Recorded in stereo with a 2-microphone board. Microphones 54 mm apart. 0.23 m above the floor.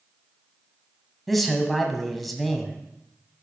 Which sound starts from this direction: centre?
A man speaking, at 1.3 s.